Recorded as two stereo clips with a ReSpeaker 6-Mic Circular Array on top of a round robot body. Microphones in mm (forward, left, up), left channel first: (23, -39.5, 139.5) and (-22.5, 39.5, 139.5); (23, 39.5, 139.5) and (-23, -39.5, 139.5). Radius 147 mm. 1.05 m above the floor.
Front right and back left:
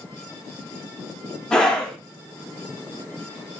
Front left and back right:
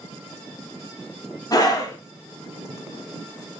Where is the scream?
20° left, 1.2 m.